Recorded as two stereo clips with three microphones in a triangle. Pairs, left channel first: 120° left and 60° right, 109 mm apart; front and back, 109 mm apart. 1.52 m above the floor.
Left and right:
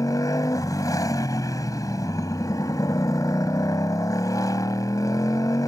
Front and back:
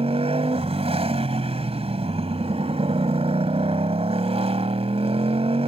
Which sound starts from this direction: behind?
A motorcycle, at 0.0 s.